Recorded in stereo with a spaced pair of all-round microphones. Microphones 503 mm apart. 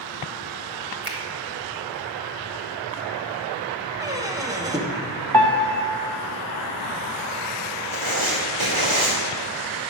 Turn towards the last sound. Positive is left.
turn(degrees=-70)  # may be behind; listen again after turning